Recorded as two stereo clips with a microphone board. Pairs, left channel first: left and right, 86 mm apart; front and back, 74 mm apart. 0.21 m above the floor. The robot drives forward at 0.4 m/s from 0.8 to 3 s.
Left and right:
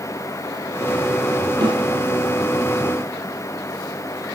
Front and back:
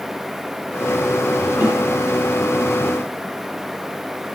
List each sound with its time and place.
1.6 s a snare drum: 120° right, 4.5 m